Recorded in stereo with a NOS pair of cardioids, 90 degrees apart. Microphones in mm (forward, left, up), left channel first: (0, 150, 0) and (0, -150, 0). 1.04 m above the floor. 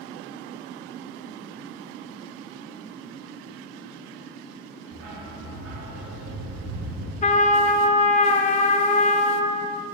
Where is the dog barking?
65° right, 1.6 m.